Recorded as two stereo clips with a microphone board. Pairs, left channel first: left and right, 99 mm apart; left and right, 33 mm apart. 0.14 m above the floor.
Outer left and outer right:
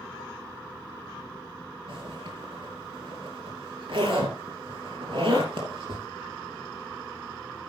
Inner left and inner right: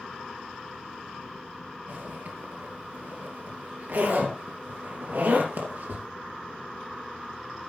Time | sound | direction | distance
1.9 | a zipper | 60° right (ahead or behind) | 3 m